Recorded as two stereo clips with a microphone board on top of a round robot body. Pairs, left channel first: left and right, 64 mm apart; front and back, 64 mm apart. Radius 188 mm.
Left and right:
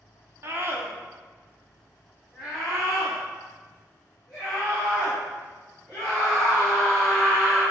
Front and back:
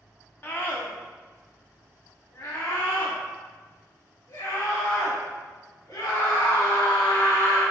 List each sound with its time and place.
0.4 s a scream: 50° right, 2.0 m; by 7.6 s 20° left, 6 m